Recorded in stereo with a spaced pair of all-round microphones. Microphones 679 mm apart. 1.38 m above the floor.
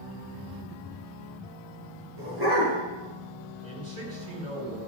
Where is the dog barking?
35° right (ahead or behind), 6.5 m.